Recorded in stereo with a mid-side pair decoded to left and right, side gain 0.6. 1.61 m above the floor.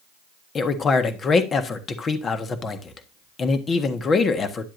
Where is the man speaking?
35° left, 1.4 m.